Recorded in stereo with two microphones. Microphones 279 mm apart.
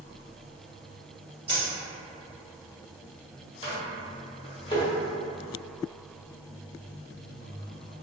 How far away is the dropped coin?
About 1.4 m.